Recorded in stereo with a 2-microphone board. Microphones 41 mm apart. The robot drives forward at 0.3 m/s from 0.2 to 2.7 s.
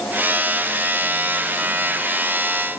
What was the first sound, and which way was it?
Only background noise.